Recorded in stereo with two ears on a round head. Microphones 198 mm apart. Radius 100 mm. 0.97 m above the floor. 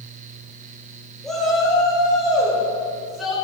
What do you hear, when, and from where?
1.2 s a shout: centre (ahead or behind), 3.5 m